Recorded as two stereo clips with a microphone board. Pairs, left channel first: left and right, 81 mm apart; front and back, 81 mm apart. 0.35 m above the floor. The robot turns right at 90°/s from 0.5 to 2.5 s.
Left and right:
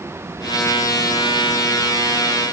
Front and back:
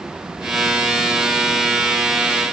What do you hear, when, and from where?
Only background noise.